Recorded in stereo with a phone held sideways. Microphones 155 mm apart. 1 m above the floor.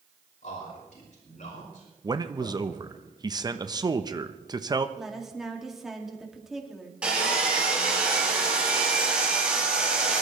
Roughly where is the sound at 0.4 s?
Left.